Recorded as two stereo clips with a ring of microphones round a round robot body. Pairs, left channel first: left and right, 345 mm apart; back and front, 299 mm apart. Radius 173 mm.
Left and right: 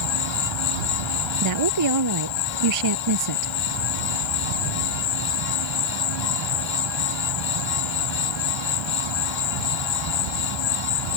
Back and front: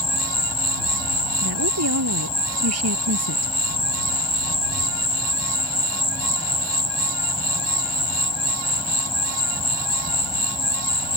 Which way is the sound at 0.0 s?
105° left.